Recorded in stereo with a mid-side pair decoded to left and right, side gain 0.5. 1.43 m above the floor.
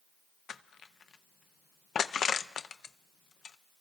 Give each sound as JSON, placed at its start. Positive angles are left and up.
{"t": 0.5, "sound": "crushing", "azimuth_deg": 50, "distance_m": 0.5}